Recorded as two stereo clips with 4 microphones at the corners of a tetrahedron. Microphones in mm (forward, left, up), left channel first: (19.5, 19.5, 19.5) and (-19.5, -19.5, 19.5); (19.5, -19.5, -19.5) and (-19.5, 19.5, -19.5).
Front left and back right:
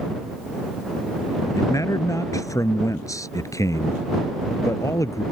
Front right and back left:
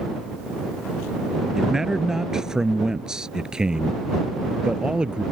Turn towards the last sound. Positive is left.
turn(degrees=60)